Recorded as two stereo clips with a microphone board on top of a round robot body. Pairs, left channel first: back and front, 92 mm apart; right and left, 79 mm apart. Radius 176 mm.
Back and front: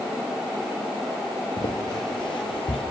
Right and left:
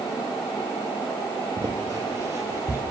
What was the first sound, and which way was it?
Footsteps, 130° left.